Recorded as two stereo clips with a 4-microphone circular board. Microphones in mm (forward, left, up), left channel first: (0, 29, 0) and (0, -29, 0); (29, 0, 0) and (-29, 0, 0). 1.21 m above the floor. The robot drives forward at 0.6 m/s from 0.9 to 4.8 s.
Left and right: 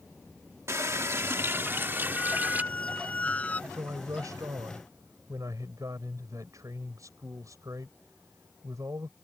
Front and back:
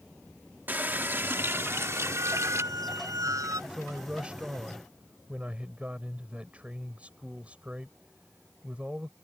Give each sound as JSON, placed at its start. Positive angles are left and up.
{"t": 0.7, "sound": "a running tap", "azimuth_deg": -125}
{"t": 2.1, "sound": "a squeak", "azimuth_deg": 155}
{"t": 3.7, "sound": "a man speaking", "azimuth_deg": -105}